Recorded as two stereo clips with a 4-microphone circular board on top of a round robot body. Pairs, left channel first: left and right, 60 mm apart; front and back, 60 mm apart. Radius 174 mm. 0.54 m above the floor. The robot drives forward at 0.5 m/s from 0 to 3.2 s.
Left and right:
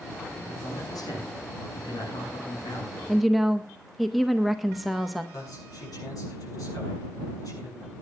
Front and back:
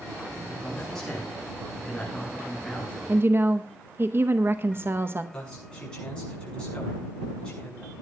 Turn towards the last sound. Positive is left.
turn(degrees=75)